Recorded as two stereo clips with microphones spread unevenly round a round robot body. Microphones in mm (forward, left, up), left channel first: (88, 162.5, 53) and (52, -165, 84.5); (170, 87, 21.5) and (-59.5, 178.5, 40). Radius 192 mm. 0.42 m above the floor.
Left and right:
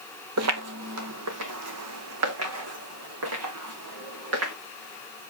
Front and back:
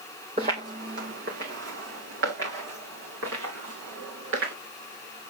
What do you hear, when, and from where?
0.4 s footsteps: 135° right, 0.6 m; by 4.5 s 145° right, 3 m